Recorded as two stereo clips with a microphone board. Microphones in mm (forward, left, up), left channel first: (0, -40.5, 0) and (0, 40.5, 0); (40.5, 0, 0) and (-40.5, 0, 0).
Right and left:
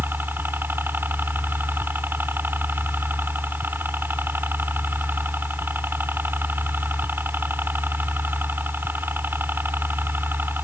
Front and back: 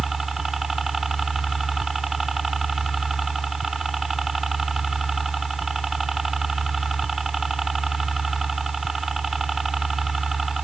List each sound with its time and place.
0.0 s a helicopter: 95° left